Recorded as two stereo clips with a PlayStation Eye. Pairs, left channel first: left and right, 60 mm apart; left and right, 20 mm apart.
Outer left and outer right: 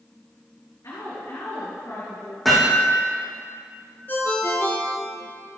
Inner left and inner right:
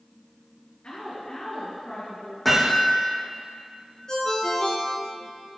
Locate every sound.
0.8 s a woman speaking: 80° left, 4.5 m
2.5 s hammering: centre (ahead or behind), 4 m
4.1 s a ringtone: 35° left (ahead or behind), 2 m